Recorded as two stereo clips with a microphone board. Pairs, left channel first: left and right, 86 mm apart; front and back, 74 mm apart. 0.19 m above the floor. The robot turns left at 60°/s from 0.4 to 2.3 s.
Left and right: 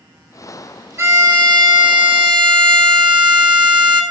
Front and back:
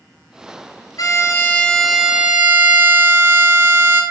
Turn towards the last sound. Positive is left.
turn(degrees=-115)